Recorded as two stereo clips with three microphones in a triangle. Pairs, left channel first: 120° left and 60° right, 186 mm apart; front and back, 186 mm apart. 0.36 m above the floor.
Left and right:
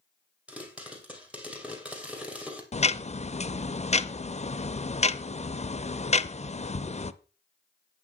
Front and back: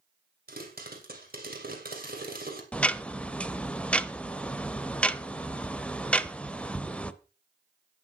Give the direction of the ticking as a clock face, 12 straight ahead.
9 o'clock.